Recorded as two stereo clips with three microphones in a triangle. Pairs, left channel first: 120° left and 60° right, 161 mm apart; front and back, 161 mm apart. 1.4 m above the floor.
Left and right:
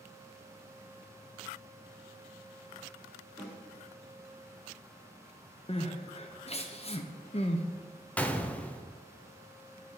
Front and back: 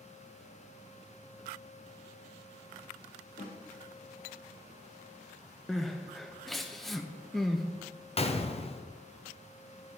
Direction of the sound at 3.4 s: 30° left.